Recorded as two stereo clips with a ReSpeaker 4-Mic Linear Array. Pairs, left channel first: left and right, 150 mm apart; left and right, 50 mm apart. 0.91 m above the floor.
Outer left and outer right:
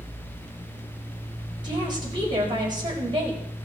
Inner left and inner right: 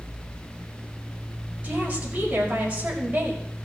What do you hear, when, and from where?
1.6 s a woman speaking: 30° right (ahead or behind), 5 m